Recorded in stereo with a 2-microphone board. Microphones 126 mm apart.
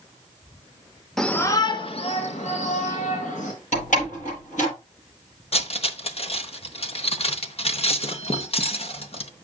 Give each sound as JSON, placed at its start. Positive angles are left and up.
{"t": 1.2, "sound": "a shout", "side_deg": 5, "distance_m": 0.9}
{"t": 3.7, "sound": "a door slam", "side_deg": 80, "distance_m": 7.5}
{"t": 5.5, "sound": "cutlery clinking", "side_deg": 50, "distance_m": 0.8}